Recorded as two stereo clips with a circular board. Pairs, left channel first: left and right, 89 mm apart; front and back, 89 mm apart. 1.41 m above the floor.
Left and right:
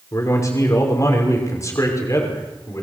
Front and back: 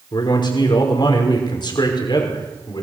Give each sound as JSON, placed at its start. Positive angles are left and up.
{"t": 0.1, "sound": "a man speaking", "azimuth_deg": 35, "distance_m": 5.5}